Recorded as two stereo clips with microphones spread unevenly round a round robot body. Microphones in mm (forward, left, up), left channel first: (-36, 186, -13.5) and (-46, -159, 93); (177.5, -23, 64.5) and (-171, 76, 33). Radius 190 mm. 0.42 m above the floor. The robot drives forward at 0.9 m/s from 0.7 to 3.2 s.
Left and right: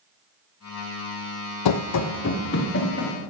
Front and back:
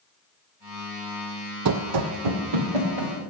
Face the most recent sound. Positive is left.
turn(degrees=150)